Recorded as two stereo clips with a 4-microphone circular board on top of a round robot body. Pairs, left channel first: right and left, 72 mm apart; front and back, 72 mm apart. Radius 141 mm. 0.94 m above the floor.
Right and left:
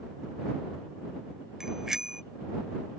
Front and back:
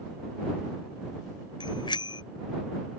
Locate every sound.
1.6 s a bicycle bell: 5° left